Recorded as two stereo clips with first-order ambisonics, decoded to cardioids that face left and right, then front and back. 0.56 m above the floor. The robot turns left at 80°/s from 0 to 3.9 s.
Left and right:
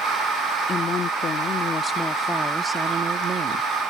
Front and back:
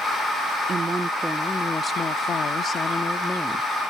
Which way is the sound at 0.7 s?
135° left.